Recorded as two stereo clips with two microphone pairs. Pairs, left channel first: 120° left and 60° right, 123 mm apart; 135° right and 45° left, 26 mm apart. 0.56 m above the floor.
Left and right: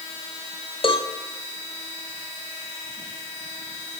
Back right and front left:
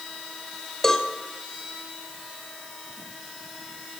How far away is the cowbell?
About 2.5 m.